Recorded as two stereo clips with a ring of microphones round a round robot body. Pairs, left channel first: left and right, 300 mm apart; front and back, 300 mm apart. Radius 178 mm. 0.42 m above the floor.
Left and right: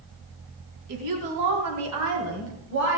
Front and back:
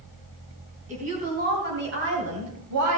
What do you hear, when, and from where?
0.9 s a woman speaking: 110° right, 3.5 m; by 3.0 s 150° right, 2.5 m